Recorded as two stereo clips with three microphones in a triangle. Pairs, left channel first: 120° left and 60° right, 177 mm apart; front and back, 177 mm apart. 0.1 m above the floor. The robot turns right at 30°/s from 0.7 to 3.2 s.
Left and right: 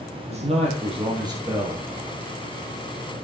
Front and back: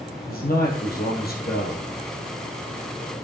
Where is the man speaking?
15° right, 2 m; by 1.8 s 20° left, 2 m.